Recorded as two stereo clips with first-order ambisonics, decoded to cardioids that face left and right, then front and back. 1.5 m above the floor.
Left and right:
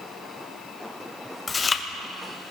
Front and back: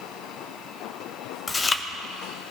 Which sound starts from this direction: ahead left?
Chewing, at 1.5 s.